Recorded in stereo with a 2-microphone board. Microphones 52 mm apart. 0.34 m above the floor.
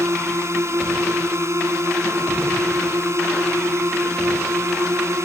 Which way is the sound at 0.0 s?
65° right (ahead or behind).